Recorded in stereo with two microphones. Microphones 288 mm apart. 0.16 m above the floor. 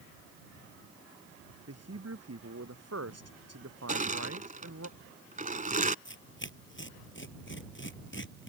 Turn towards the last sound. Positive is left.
turn(degrees=40)  # may be behind; listen again after turning